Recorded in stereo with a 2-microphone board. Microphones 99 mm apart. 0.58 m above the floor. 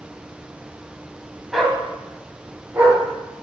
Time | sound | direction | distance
1.5 | a dog barking | centre (ahead or behind) | 1.6 m